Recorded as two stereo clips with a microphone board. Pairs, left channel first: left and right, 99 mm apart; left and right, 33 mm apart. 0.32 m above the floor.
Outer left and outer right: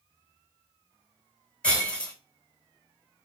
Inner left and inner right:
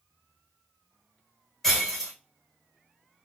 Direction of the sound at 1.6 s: 10° left (ahead or behind).